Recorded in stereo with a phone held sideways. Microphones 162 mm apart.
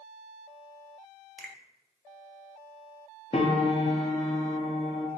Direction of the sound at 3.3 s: 40° left (ahead or behind).